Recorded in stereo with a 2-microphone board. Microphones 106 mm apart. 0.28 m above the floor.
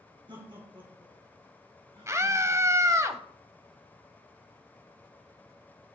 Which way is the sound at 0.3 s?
50° right (ahead or behind).